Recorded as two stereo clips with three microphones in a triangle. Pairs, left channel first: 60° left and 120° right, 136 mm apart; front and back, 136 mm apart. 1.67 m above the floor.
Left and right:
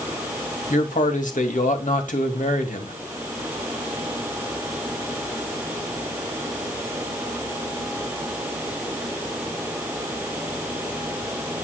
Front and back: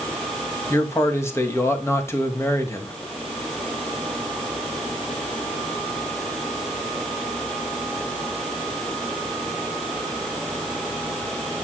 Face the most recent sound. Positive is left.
turn(degrees=70)